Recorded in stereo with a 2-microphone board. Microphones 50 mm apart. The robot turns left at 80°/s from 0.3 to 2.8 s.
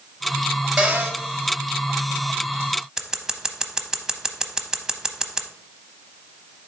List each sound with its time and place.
0.8 s a cupboard door: 5° right, 3 m; by 1.2 s 35° right, 3 m
3.0 s scissors: 10° right (ahead or behind), 0.7 m